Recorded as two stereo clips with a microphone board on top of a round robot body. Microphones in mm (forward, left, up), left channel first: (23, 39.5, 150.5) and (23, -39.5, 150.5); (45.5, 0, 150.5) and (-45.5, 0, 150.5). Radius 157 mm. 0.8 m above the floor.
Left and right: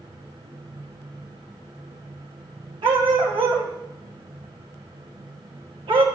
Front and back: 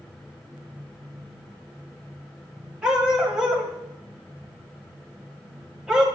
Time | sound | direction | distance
2.8 | a dog barking | 100° right | 2.5 m